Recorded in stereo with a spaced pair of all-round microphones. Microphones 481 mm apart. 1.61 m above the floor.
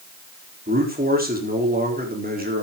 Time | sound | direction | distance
0.7 | a man speaking | 20° right (ahead or behind) | 4 m